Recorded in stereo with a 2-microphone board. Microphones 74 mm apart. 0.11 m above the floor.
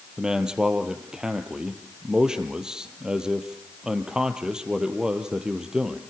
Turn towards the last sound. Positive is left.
turn(degrees=-10)  # may be behind; listen again after turning